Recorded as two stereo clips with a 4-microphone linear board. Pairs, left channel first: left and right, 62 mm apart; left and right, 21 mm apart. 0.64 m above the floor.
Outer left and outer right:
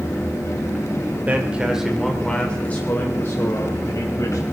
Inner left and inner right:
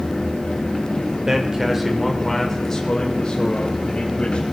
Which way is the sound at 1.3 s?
25° right (ahead or behind).